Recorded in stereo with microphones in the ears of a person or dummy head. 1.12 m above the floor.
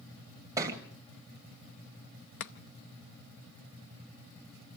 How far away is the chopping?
About 0.9 m.